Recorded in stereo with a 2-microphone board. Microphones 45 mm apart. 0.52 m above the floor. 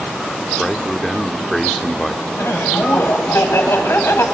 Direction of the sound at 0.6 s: 5° left (ahead or behind).